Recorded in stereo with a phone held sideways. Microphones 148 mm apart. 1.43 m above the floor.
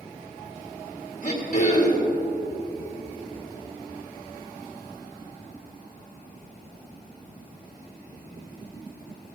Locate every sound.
1.2 s throat clearing: 50° left (ahead or behind), 2 m